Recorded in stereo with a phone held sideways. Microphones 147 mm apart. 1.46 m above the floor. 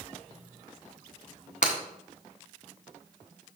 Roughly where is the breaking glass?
Left.